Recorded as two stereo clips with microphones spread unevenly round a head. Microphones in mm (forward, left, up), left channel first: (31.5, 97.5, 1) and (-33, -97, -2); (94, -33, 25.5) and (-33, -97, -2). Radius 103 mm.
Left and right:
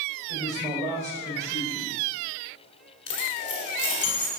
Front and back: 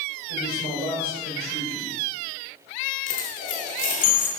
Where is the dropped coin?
40° left, 1.8 m.